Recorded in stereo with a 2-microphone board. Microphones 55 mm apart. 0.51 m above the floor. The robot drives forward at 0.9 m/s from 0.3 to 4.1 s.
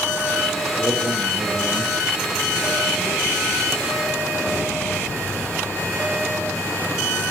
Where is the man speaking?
70° right (ahead or behind), 8 m; by 4.0 s 85° right, 7.5 m.